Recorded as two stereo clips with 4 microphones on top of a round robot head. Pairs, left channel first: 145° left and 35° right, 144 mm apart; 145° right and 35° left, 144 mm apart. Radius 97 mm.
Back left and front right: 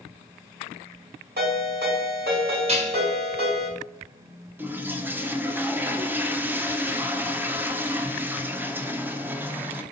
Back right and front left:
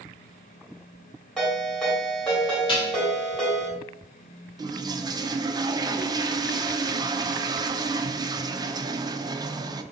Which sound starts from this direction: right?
Dishes clattering, at 2.7 s.